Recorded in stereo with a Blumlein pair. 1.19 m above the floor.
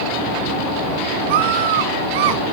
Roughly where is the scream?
Ahead right.